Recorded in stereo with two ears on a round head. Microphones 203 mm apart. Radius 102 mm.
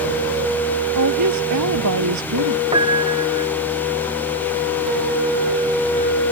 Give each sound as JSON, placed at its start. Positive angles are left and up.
{"t": 0.9, "sound": "a woman speaking", "side_deg": -85}
{"t": 2.7, "sound": "a piano", "side_deg": -20}